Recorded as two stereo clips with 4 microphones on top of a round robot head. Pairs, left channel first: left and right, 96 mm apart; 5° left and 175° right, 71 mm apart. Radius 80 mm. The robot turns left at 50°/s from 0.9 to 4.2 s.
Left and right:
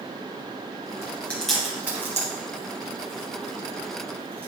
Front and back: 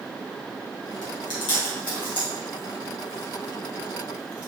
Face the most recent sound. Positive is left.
turn(degrees=-130)